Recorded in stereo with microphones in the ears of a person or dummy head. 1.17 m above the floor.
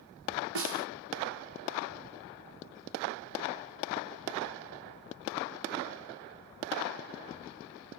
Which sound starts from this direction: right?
A snare drum, at 0.6 s.